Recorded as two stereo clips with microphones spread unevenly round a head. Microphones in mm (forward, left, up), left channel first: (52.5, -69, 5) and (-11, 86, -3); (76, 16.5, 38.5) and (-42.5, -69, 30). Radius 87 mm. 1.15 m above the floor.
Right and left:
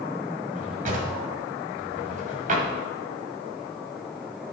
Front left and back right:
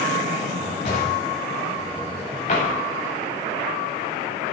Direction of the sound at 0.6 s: 80° left.